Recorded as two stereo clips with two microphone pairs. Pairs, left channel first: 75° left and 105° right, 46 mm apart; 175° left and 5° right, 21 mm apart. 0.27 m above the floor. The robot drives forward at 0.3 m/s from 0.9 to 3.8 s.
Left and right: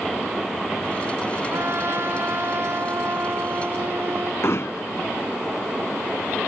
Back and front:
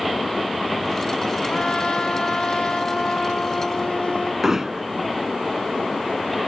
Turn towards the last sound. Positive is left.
turn(degrees=65)